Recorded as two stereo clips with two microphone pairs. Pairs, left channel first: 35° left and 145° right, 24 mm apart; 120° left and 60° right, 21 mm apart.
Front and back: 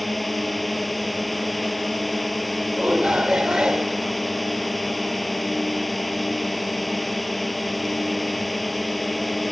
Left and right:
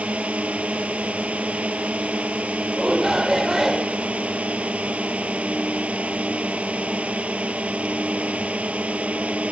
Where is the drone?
55° right.